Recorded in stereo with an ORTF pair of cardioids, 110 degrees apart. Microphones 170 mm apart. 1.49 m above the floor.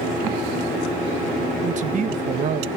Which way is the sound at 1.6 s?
45° right.